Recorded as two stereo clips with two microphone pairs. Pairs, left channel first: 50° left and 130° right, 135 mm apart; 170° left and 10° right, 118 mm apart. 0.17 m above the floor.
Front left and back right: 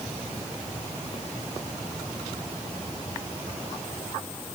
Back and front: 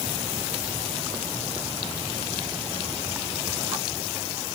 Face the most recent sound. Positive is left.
No sound to turn to.